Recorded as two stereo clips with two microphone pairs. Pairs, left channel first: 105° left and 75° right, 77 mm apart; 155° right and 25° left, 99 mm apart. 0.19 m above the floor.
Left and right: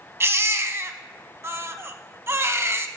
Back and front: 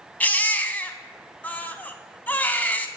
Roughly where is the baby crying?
Right.